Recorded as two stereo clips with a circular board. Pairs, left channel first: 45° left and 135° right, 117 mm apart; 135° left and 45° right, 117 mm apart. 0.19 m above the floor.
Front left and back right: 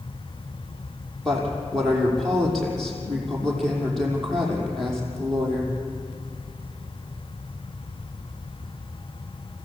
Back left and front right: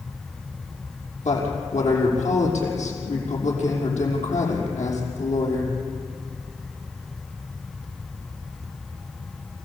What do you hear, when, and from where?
1.2 s a woman speaking: 130° left, 6 m